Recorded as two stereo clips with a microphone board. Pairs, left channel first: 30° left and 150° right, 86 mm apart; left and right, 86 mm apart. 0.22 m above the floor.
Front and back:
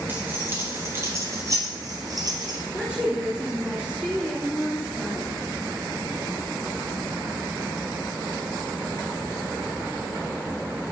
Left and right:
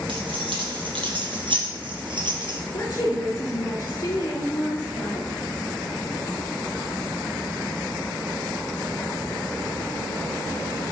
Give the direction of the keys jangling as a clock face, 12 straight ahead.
3 o'clock.